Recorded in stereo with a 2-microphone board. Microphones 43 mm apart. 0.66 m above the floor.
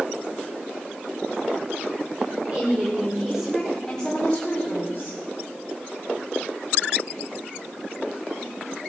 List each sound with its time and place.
2.5 s a woman speaking: 30° right (ahead or behind), 2 m; by 5.2 s 45° left (ahead or behind), 2.5 m